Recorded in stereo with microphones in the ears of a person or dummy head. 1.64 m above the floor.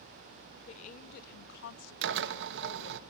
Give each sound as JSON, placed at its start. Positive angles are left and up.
{"t": 0.7, "sound": "a woman speaking", "side_deg": 35, "distance_m": 1.4}
{"t": 2.0, "sound": "a drill", "side_deg": -65, "distance_m": 0.9}